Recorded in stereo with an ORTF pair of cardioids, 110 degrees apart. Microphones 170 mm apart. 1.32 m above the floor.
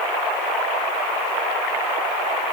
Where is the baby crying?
No baby crying in this recording.